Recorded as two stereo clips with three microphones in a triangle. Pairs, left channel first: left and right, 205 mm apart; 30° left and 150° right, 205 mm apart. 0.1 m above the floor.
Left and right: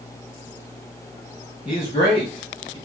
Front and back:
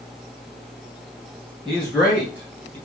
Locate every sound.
1.6 s a man speaking: 110° left, 1.8 m; by 2.8 s 145° left, 2.5 m